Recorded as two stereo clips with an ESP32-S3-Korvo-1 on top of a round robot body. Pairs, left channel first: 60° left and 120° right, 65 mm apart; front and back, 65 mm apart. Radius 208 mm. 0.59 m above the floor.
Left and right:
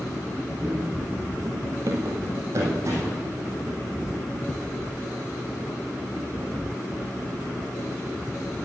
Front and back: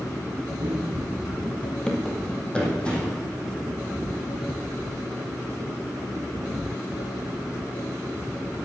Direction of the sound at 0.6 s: 165° left.